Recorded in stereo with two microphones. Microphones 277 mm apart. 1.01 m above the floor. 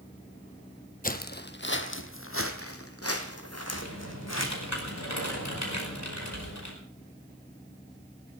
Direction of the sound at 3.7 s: 75° left (ahead or behind).